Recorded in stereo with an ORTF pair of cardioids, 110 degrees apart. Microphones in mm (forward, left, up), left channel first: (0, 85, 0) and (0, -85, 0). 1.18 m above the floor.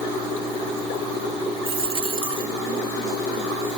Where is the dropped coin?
35° right.